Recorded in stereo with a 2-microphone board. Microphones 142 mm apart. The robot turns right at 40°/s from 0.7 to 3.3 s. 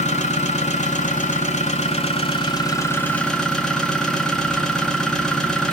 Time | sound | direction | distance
0.0 | an engine running | 70° left | 1.0 m